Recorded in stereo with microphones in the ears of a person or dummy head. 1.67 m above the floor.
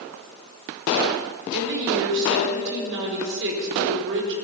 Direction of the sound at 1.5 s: 60° right (ahead or behind).